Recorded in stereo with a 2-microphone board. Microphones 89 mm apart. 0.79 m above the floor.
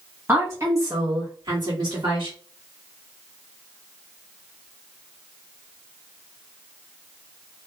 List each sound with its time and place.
0.3 s a woman speaking: 25° right (ahead or behind), 1.5 m; by 2.4 s 60° right (ahead or behind), 1.7 m